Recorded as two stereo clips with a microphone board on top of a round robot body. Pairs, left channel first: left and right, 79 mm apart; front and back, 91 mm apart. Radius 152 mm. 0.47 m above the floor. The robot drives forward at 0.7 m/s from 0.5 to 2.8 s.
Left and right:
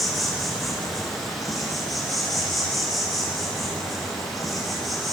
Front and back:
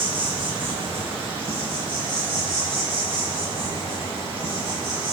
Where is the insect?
Straight behind, 3 m.